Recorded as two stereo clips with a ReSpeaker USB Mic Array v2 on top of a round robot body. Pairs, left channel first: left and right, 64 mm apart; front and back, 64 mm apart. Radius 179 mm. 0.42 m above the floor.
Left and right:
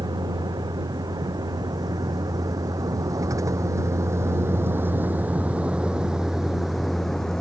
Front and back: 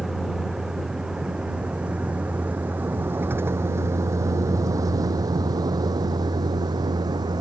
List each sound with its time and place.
0.0 s a vehicle: 95° right; by 7.4 s 170° left